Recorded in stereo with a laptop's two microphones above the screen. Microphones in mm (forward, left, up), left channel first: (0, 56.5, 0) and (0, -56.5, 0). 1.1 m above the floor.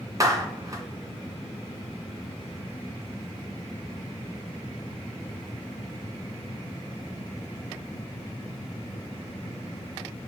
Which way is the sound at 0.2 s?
30° right (ahead or behind).